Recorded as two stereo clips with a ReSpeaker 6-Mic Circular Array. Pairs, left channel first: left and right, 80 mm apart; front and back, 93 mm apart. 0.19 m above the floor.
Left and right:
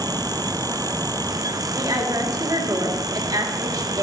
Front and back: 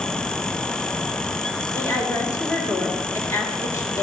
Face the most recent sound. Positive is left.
turn(degrees=-60)